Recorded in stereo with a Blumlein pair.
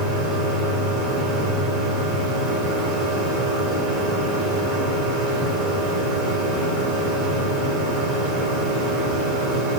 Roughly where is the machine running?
Ahead right.